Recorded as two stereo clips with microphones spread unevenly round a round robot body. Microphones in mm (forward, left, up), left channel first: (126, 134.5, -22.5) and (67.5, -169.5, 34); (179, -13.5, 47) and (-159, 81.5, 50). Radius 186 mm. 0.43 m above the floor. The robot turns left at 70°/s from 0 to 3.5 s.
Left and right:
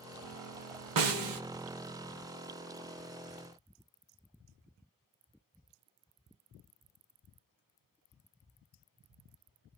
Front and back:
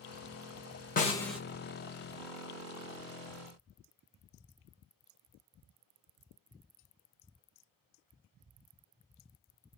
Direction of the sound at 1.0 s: 80° right.